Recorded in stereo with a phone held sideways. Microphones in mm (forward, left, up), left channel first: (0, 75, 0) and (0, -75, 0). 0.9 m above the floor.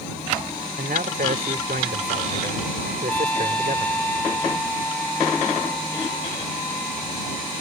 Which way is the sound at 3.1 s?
10° left (ahead or behind).